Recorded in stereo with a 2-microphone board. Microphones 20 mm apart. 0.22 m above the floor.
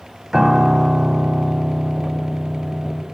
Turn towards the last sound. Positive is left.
turn(degrees=-25)  # may be behind; listen again after turning